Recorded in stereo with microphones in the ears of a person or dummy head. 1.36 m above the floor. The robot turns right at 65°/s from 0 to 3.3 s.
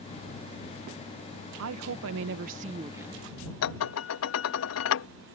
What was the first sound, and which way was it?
A woman speaking, 105° right.